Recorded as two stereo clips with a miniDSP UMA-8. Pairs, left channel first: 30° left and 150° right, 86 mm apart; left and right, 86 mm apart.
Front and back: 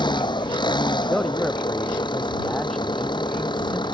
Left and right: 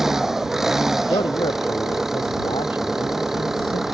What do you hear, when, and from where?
0.0 s an engine running: 5° right
1.0 s a man speaking: 110° left